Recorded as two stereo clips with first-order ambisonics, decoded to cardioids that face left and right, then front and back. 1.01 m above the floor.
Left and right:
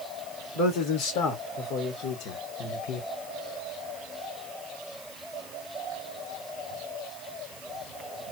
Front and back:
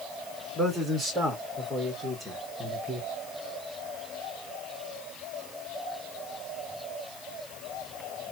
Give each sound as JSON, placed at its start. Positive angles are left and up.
{"t": 0.6, "sound": "a man speaking", "azimuth_deg": 95, "distance_m": 2.0}